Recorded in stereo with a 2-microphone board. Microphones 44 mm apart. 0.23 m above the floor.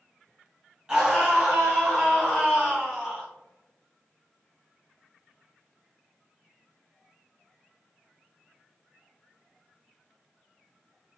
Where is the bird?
I don't hear a bird.